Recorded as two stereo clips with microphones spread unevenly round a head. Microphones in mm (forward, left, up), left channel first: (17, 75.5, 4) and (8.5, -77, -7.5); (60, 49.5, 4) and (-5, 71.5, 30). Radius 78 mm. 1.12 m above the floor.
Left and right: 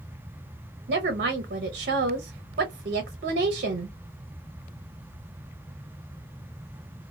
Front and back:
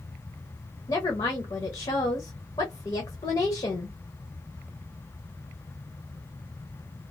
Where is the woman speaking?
60° right, 0.6 m.